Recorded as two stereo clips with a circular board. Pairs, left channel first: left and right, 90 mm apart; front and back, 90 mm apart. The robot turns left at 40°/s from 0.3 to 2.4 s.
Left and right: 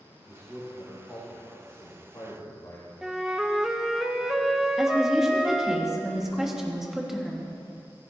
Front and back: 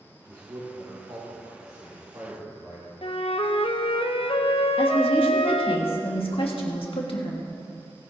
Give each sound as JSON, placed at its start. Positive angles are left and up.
{"t": 0.3, "sound": "a man speaking", "azimuth_deg": -140, "distance_m": 3.0}
{"t": 3.0, "sound": "a flute", "azimuth_deg": -5, "distance_m": 0.7}
{"t": 4.8, "sound": "a woman speaking", "azimuth_deg": -5, "distance_m": 1.5}